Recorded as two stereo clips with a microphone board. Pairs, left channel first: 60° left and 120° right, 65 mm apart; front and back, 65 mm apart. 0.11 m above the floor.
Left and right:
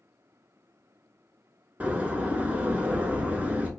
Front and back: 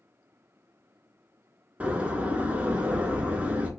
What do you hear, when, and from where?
1.8 s a door slam: 150° right, 0.8 m